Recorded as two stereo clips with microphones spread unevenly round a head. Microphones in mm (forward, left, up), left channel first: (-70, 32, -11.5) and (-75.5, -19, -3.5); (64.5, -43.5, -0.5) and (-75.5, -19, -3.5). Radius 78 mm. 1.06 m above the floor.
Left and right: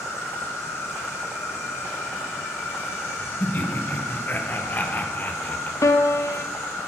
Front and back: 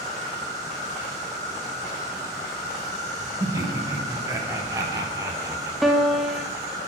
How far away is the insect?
About 1.7 m.